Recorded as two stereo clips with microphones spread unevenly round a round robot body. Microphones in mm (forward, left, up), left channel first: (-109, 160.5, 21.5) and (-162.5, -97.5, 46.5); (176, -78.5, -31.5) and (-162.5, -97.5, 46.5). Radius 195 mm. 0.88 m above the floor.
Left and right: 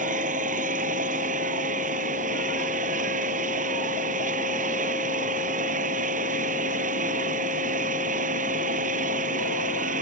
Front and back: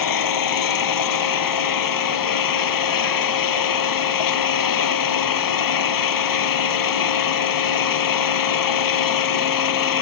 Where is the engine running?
30° right.